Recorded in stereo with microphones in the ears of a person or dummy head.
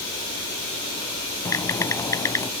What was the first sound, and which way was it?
Typing on a keyboard, 15° left (ahead or behind).